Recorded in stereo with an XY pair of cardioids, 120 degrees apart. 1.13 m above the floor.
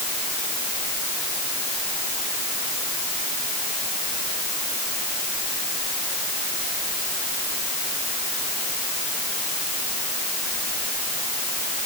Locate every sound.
Only background noise.